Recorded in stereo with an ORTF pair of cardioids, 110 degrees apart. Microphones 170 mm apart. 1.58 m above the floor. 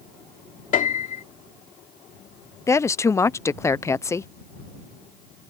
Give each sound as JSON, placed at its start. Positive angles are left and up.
{"t": 0.7, "sound": "a piano", "azimuth_deg": 50}
{"t": 2.7, "sound": "a woman speaking", "azimuth_deg": 15}